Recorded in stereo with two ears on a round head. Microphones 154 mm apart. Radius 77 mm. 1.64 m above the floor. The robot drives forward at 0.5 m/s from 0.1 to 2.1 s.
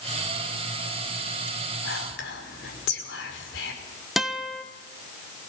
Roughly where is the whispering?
Left.